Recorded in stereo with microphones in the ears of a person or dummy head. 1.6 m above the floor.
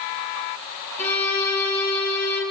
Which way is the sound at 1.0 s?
10° left (ahead or behind).